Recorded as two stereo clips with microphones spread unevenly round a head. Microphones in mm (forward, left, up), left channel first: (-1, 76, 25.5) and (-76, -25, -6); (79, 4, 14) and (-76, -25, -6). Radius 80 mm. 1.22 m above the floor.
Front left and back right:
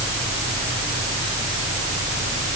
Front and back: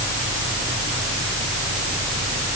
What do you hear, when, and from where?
Only background noise.